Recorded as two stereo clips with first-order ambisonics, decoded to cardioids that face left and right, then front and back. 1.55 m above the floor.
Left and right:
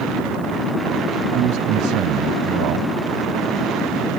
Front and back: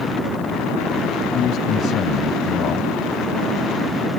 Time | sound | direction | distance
1.3 | a man speaking | 55° right | ?